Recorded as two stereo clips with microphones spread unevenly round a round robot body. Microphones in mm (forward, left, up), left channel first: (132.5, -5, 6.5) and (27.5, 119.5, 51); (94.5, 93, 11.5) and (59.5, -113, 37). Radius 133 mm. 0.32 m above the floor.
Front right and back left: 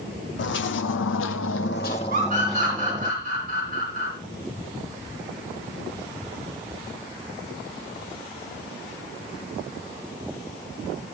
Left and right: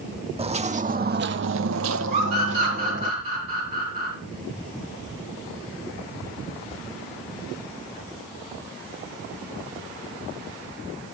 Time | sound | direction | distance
0.4 | footsteps | 40° right | 1.0 m
2.1 | a scream | 170° right | 3 m